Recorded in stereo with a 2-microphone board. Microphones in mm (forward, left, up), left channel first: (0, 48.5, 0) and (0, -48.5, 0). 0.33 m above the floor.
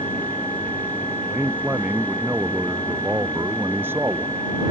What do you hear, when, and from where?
1.3 s a man speaking: 15° right (ahead or behind); by 4.4 s 25° right (ahead or behind)